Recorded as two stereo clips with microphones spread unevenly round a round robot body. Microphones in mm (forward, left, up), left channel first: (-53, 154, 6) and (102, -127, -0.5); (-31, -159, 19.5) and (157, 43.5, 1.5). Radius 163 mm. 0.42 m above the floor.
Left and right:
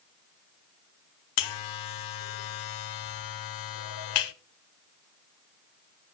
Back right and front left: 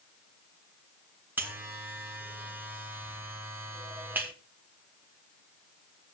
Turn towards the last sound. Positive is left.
turn(degrees=130)